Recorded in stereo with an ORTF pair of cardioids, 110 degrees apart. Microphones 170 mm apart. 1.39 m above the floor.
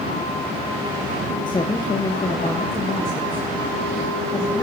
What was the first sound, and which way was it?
A woman speaking, 25° left.